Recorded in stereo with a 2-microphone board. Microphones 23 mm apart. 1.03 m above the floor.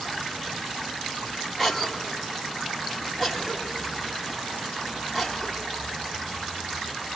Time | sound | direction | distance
1.6 | a cough | 5° right (ahead or behind) | 2.5 m